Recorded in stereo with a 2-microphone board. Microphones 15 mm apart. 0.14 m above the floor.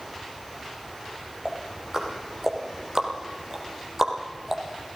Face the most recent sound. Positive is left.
turn(degrees=-35)  # may be behind; listen again after turning